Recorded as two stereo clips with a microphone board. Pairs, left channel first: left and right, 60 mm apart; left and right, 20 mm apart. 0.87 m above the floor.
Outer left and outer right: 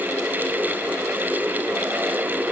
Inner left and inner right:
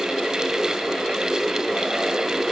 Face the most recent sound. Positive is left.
No sound to turn to.